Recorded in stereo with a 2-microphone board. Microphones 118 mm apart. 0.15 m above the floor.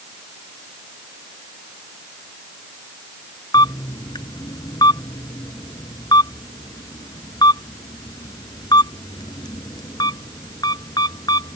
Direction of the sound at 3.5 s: 35° left (ahead or behind).